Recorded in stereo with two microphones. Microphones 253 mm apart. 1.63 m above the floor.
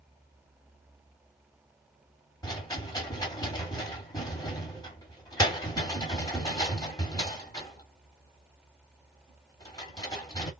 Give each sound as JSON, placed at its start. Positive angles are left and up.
{"t": 2.4, "sound": "a rattle", "side_deg": 15, "distance_m": 1.7}